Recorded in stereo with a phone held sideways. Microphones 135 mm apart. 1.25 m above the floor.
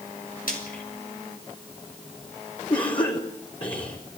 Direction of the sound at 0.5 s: 80° left.